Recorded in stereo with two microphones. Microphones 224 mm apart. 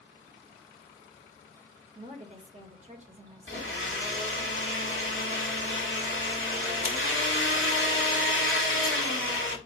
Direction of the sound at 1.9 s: 30° right (ahead or behind).